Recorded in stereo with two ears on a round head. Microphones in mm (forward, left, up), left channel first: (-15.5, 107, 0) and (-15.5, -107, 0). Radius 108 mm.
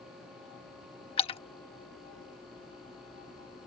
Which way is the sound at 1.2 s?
25° left (ahead or behind).